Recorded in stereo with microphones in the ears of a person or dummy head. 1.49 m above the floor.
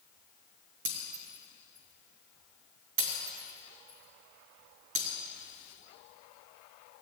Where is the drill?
No drill in this recording.